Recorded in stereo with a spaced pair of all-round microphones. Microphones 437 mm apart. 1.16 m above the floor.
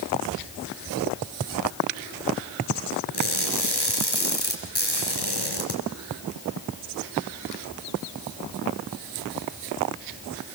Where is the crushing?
60° left (ahead or behind), 5 m.